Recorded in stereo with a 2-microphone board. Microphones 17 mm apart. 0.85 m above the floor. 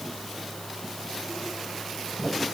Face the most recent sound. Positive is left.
No sound to turn to.